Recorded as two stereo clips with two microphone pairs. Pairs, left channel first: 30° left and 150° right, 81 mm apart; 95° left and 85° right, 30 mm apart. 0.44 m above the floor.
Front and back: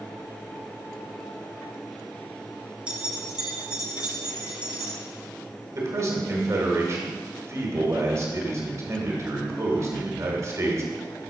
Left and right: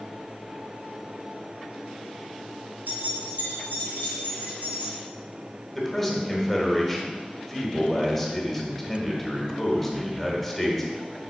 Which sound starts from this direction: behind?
A man speaking, at 5.8 s.